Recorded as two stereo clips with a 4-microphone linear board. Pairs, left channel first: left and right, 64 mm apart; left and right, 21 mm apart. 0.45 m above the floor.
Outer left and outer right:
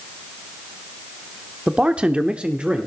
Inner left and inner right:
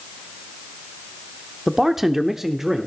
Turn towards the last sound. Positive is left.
turn(degrees=-15)  # may be behind; listen again after turning